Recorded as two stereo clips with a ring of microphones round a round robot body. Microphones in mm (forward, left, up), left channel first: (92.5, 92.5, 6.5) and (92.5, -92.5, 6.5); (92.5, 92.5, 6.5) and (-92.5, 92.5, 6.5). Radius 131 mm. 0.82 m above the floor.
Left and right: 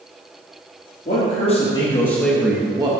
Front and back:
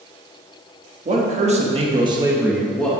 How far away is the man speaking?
About 1.6 m.